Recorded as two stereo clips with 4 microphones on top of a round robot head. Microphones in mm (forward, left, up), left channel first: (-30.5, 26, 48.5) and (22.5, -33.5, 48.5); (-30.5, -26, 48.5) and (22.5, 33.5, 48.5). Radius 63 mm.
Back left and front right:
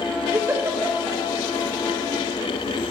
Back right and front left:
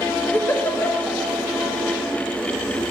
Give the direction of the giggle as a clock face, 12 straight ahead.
3 o'clock.